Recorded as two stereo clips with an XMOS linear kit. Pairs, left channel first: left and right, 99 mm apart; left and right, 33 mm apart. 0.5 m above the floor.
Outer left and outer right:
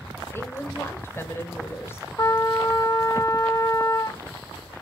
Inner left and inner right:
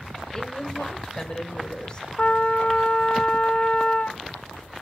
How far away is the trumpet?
About 1.4 m.